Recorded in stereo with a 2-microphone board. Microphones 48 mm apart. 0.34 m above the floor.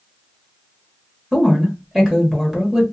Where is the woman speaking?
10° right (ahead or behind), 1.1 m.